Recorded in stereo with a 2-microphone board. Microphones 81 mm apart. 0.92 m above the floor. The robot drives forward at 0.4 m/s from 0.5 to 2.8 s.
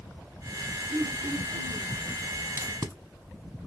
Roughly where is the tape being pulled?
Right.